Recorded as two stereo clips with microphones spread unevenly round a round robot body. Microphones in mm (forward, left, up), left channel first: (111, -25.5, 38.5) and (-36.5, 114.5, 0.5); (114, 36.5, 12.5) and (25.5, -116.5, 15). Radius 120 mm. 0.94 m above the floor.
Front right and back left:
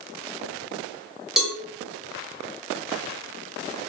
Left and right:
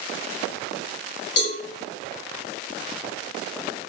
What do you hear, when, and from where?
1.4 s a cowbell: 55° left, 1.1 m